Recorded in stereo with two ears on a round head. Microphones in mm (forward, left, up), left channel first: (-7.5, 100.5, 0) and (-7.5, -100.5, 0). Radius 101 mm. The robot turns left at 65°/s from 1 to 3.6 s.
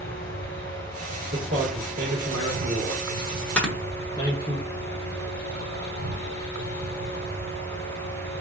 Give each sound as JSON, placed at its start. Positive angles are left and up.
{"t": 0.0, "sound": "an insect", "azimuth_deg": 45, "distance_m": 0.8}
{"t": 1.3, "sound": "a man speaking", "side_deg": -45, "distance_m": 1.9}
{"t": 3.6, "sound": "snoring", "side_deg": 5, "distance_m": 0.9}